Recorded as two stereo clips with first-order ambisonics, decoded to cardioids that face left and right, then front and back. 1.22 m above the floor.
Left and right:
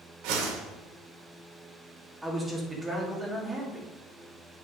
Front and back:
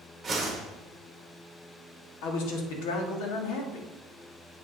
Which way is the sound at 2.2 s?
10° right.